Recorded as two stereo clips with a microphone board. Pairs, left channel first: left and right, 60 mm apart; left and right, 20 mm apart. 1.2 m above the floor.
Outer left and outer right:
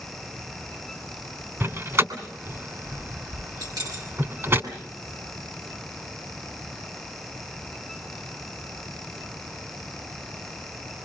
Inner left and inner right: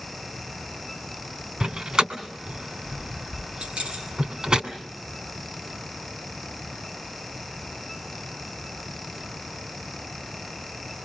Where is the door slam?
40° right (ahead or behind), 2.5 m.